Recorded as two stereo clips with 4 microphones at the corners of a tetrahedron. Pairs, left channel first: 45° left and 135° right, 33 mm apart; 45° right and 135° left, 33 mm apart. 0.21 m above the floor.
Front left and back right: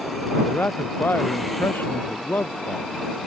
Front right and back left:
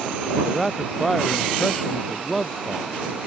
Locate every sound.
0.4 s a man speaking: 35° left; by 2.9 s 40° left